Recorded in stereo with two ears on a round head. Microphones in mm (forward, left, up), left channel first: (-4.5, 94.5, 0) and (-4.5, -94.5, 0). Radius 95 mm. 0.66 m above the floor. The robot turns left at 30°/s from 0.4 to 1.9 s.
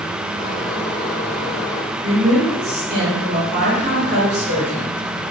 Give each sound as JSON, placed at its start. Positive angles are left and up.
{"t": 2.0, "sound": "a woman speaking", "side_deg": -40, "distance_m": 1.6}